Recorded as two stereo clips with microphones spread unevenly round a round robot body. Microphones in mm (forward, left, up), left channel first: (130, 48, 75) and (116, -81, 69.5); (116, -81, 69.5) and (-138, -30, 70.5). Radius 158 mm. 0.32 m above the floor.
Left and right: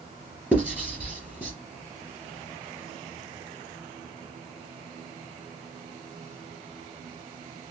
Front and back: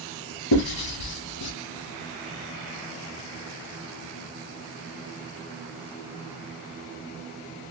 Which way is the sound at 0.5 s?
15° right.